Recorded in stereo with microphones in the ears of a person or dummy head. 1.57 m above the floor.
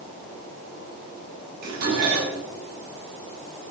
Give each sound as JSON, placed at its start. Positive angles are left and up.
{"t": 1.6, "sound": "dishes clattering", "side_deg": -60, "distance_m": 9.5}